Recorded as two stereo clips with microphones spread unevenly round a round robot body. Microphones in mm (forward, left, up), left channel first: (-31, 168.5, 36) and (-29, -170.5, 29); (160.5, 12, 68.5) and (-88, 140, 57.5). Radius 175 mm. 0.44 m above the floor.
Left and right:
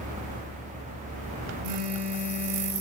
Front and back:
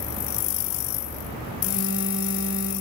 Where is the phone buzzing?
100° right, 2.5 m.